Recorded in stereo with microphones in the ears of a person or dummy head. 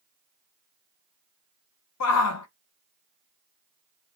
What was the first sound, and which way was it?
A shout, 80° left.